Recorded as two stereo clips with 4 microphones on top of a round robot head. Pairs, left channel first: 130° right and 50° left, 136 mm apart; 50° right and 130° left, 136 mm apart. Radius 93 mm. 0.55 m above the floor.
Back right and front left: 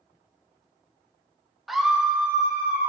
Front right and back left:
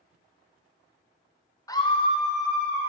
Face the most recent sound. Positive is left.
turn(degrees=-30)